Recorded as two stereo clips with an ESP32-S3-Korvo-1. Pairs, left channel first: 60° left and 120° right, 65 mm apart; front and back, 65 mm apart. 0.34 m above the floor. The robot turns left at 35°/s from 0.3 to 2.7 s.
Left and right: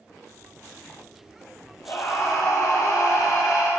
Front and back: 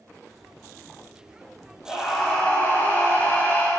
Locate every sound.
1.9 s a scream: 90° left, 1.8 m; by 3.7 s 60° left, 1.8 m